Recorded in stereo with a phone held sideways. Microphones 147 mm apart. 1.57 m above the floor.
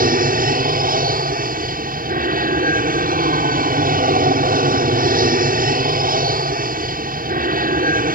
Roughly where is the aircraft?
Right.